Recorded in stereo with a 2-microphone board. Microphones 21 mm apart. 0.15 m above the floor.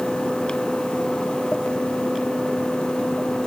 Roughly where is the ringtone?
No ringtone in this recording.